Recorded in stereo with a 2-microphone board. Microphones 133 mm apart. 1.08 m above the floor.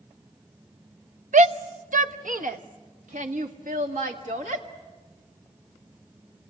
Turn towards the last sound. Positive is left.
turn(degrees=-75)  # may be behind; listen again after turning